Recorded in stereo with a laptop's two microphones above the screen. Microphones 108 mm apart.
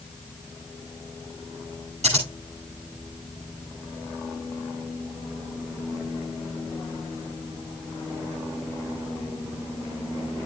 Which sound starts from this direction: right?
Scissors, at 2.0 s.